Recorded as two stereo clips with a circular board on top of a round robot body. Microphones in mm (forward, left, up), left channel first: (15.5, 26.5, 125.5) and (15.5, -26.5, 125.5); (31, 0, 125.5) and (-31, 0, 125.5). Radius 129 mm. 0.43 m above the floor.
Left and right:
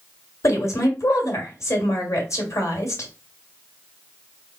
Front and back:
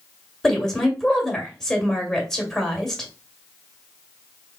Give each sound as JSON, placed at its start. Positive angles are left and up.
{"t": 0.4, "sound": "a woman speaking", "azimuth_deg": 80, "distance_m": 1.7}